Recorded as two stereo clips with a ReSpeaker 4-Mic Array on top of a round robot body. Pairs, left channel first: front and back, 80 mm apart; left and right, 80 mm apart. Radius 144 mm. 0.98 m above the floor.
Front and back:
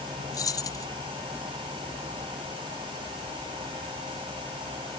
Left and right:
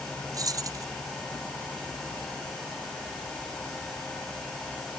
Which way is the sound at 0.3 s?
45° right.